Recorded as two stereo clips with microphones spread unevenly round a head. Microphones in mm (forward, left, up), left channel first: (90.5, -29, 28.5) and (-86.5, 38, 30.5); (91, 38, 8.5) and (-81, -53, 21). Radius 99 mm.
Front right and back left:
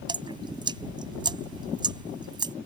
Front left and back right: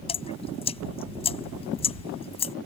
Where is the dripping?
90° left.